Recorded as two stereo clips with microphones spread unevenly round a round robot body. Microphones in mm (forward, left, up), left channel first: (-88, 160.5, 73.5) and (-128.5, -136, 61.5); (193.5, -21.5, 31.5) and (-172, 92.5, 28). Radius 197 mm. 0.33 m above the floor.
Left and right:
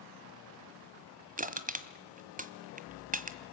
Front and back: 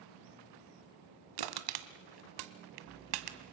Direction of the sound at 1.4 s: 165° right.